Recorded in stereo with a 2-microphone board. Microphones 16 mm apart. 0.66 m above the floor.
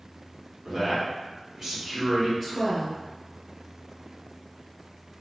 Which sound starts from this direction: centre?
A woman speaking, at 2.4 s.